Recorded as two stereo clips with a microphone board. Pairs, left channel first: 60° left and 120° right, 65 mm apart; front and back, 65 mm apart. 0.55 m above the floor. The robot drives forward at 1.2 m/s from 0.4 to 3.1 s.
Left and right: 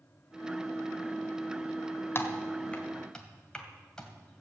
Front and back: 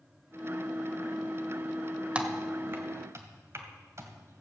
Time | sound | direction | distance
2.1 | typing on a keyboard | 110° left | 1.5 m